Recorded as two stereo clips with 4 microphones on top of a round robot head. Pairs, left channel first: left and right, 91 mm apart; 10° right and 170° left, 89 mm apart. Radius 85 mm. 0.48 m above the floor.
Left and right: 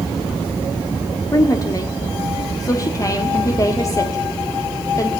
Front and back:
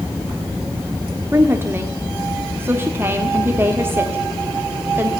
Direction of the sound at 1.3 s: 120° left.